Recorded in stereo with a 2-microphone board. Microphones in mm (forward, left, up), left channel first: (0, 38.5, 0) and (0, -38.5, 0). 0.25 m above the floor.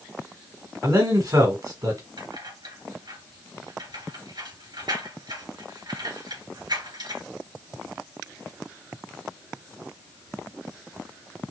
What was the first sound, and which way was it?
A man speaking, 55° right (ahead or behind).